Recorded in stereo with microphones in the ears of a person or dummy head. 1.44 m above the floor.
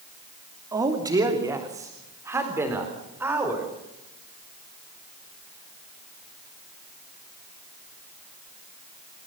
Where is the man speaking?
20° right (ahead or behind), 2.5 m; by 3.7 s 10° right (ahead or behind), 4.5 m.